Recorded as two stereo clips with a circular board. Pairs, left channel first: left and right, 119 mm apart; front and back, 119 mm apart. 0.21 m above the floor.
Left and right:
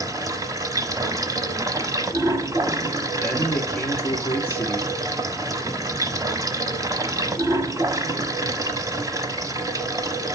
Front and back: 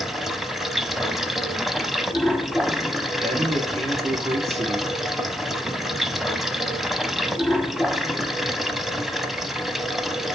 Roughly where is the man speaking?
Behind.